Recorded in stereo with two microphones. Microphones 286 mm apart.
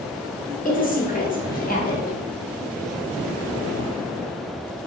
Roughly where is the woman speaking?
Left.